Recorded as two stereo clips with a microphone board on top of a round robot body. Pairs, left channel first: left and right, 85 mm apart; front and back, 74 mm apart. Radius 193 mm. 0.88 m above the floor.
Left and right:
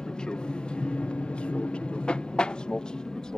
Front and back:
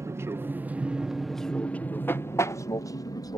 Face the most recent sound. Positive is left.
turn(degrees=10)